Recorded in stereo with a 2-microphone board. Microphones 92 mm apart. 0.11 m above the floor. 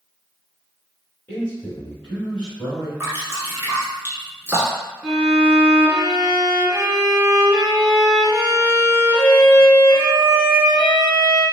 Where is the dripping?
20° right (ahead or behind), 1.1 m.